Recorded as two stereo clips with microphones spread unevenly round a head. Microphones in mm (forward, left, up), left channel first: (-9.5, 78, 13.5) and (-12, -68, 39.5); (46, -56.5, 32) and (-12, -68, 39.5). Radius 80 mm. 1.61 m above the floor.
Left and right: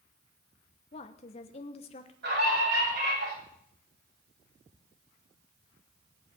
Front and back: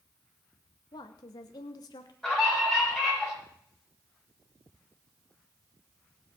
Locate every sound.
0.9 s a woman speaking: 35° left, 1.2 m
2.2 s a scream: 70° right, 9.5 m